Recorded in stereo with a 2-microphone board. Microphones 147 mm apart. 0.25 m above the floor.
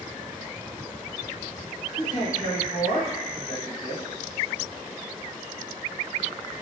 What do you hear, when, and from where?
2.0 s a man speaking: 30° left (ahead or behind), 1.2 m